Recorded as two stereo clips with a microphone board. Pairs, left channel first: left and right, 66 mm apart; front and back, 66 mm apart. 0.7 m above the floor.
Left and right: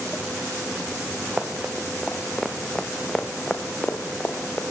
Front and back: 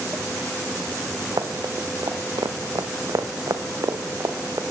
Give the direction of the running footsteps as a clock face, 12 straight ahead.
5 o'clock.